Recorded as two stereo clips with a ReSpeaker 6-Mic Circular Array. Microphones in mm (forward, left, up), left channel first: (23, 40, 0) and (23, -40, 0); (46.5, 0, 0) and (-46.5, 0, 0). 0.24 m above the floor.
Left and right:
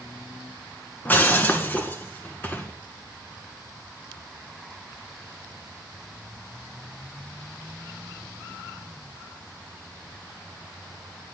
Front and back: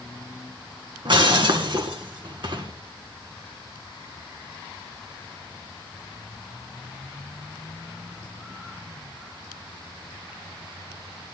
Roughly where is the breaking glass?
Behind left.